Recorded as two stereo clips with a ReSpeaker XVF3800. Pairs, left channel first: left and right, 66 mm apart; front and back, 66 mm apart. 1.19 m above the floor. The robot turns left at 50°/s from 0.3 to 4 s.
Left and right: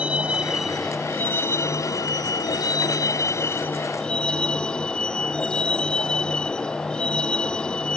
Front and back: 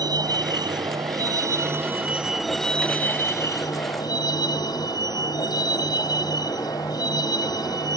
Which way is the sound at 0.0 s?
160° right.